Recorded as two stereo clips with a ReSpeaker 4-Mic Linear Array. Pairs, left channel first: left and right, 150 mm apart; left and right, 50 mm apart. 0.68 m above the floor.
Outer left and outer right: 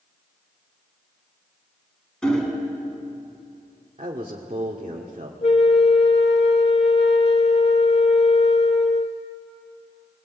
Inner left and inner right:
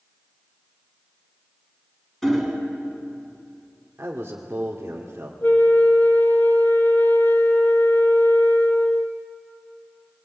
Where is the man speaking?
45° right (ahead or behind), 1.9 m.